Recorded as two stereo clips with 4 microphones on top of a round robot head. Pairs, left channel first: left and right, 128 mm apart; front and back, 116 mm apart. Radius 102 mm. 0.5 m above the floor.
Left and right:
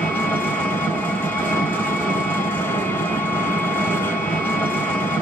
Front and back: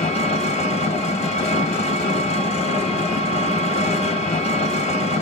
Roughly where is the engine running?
Ahead.